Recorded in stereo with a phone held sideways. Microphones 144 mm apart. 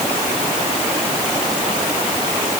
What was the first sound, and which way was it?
Only background noise.